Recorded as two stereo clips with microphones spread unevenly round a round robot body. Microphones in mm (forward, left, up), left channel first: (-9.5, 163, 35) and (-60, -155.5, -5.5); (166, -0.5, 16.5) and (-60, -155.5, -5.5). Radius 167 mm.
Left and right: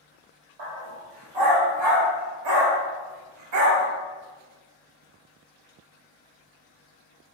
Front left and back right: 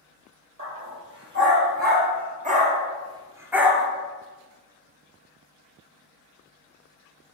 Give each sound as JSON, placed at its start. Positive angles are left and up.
{"t": 0.6, "sound": "a dog barking", "azimuth_deg": -100, "distance_m": 3.5}